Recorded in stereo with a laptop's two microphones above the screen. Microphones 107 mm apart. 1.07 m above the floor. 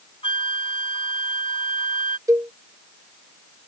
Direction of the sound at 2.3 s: 30° right (ahead or behind).